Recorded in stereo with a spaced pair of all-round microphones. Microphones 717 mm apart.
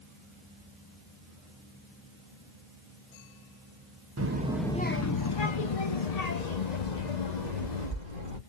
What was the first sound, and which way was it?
A child speaking, 25° right (ahead or behind).